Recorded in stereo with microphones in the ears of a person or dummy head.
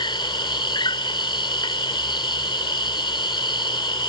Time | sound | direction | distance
0.0 | an insect | 25° left (ahead or behind) | ?